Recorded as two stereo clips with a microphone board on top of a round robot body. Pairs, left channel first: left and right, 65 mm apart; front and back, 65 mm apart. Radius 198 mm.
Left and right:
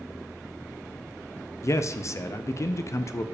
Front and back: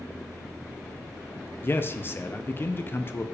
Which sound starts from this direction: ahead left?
A man speaking, at 1.6 s.